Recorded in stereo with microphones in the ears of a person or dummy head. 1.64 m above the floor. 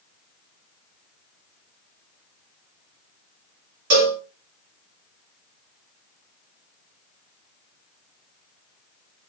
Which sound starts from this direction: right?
A cowbell, at 3.9 s.